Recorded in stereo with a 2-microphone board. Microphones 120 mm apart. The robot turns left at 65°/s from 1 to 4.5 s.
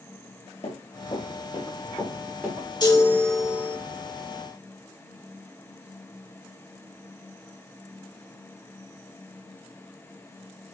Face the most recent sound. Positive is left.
turn(degrees=-75)